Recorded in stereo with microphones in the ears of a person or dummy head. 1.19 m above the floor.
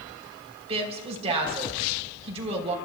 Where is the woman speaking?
35° right (ahead or behind), 3.5 m.